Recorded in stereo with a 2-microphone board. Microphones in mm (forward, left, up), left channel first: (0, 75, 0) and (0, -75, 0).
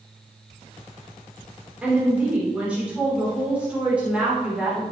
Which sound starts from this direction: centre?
A woman speaking, at 1.8 s.